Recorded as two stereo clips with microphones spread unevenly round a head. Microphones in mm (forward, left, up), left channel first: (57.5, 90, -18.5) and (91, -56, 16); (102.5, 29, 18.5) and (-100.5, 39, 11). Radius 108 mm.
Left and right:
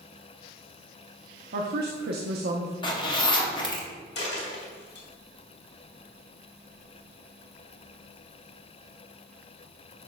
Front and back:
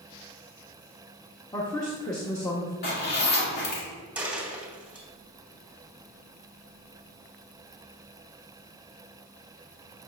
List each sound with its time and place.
1.5 s a woman speaking: 80° right, 0.7 m
2.8 s a zipper: 40° left, 1.8 m
4.2 s a dropped coin: 95° left, 2.5 m